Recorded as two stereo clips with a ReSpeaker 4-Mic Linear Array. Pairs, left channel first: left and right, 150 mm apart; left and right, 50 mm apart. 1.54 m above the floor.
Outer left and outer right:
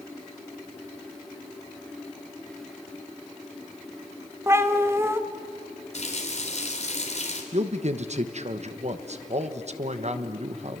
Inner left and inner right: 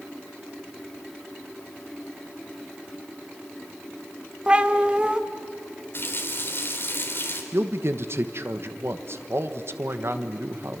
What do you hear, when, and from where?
4.5 s a cat meowing: 15° right (ahead or behind), 1.2 m
5.9 s a running tap: 45° left (ahead or behind), 3.5 m
7.5 s a man speaking: 50° right (ahead or behind), 1.2 m